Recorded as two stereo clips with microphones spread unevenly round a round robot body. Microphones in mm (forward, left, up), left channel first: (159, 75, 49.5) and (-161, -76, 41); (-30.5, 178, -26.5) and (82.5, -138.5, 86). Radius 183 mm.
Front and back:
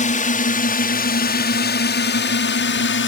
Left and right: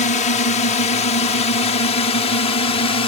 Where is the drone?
85° left; by 3.1 s 65° left.